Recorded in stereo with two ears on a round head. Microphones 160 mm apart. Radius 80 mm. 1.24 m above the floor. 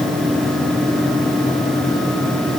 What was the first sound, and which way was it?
Only background noise.